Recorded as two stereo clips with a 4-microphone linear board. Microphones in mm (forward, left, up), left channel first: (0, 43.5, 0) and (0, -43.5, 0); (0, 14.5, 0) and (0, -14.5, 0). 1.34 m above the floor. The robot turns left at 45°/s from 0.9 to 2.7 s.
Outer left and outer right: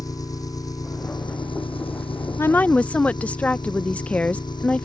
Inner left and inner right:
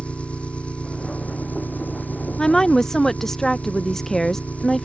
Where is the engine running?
135° left; by 4.9 s 55° left.